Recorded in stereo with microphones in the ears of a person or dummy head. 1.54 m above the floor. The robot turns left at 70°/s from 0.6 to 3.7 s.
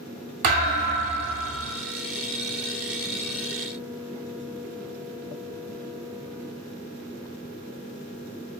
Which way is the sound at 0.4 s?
30° right (ahead or behind).